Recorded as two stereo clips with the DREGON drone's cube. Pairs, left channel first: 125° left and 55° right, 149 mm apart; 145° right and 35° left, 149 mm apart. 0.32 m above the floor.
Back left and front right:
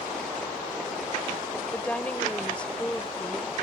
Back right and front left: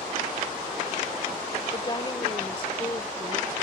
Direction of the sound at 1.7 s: 160° right.